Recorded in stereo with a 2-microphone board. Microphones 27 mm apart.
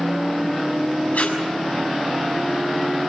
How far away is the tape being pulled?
About 6.5 m.